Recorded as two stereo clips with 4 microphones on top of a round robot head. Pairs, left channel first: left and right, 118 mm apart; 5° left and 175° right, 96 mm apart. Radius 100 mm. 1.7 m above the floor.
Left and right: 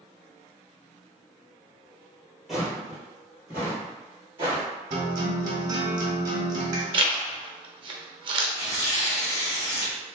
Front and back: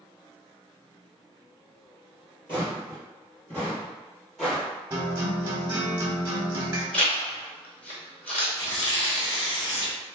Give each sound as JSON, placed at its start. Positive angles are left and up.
{"t": 2.5, "sound": "footsteps", "azimuth_deg": -5, "distance_m": 1.9}
{"t": 4.9, "sound": "a guitar", "azimuth_deg": -120, "distance_m": 0.9}
{"t": 6.9, "sound": "a zipper", "azimuth_deg": -45, "distance_m": 0.5}
{"t": 8.6, "sound": "tearing paper", "azimuth_deg": 40, "distance_m": 2.0}